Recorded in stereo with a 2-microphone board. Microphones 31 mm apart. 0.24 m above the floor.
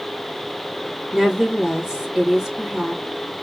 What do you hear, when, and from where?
1.1 s a woman speaking: 10° right (ahead or behind), 2.5 m